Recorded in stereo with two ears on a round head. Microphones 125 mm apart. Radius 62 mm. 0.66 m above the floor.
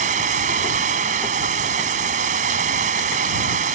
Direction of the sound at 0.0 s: 60° right (ahead or behind).